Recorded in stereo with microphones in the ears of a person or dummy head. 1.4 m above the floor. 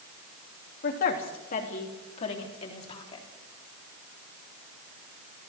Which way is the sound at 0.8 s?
45° left (ahead or behind).